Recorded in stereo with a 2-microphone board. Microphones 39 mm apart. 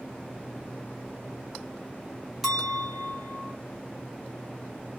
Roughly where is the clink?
Centre.